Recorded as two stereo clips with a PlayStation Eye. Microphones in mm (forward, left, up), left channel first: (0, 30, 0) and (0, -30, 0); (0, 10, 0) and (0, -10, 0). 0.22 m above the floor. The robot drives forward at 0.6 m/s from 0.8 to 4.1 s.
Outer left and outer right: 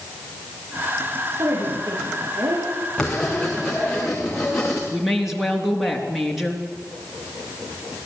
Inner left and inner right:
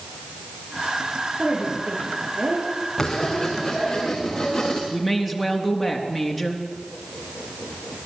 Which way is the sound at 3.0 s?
10° left (ahead or behind).